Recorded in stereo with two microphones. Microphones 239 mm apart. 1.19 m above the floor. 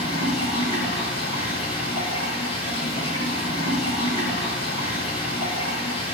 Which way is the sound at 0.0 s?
25° left (ahead or behind).